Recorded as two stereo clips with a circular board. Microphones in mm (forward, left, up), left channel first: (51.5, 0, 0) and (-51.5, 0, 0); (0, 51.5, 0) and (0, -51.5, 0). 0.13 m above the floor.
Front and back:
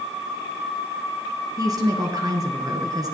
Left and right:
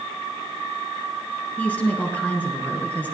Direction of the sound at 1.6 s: 160° left.